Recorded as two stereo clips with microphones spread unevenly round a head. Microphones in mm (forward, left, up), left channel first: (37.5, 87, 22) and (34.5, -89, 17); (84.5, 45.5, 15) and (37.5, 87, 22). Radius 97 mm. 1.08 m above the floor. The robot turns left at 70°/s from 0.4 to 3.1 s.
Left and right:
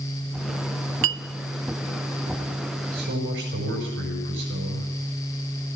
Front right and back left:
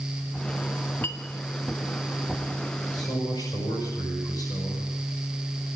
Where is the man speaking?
60° right, 5.5 m; by 4.9 s 75° right, 5.5 m.